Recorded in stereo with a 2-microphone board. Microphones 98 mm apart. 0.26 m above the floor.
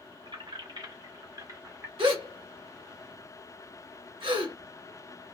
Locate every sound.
0.2 s keys jangling: 55° right (ahead or behind), 1.7 m; by 1.9 s 20° right (ahead or behind), 0.9 m
2.0 s a gasp: 65° right (ahead or behind), 1.7 m